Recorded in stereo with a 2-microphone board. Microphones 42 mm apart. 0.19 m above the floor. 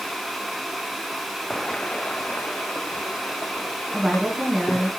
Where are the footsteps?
10° left (ahead or behind), 0.5 m; by 4.9 s 55° left (ahead or behind), 3 m.